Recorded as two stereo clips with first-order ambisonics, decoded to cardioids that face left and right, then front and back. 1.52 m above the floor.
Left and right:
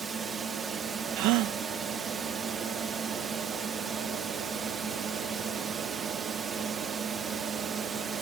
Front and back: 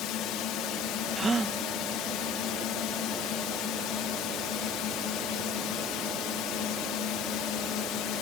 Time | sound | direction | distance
0.0 | a drone | 25° right | ?
1.2 | a gasp | 110° right | ?